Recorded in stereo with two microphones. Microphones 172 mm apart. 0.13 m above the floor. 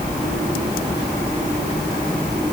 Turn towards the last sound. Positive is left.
No sound to turn to.